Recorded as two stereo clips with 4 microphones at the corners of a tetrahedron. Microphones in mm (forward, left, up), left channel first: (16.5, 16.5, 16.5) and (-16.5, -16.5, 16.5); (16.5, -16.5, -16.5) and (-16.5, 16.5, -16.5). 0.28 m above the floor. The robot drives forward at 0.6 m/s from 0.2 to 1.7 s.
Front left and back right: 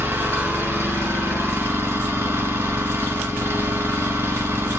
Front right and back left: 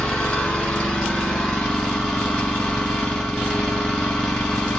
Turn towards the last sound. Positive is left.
turn(degrees=-130)